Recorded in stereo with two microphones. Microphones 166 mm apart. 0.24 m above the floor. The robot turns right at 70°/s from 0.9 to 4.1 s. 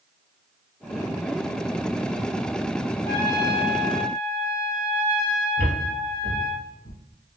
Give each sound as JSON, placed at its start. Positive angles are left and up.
{"t": 3.0, "sound": "a trumpet", "side_deg": 20, "distance_m": 0.9}
{"t": 5.6, "sound": "footsteps", "side_deg": 80, "distance_m": 1.7}